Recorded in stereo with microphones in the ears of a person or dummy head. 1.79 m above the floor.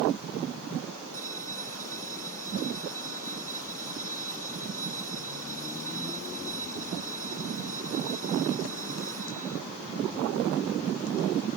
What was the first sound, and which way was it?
A bell, 10° left (ahead or behind).